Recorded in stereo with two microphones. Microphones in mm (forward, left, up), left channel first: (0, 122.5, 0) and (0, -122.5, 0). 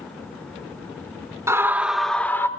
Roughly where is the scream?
Centre.